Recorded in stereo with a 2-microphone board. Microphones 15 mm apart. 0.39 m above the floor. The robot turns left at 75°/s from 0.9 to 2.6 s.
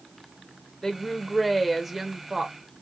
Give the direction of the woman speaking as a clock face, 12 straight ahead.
10 o'clock.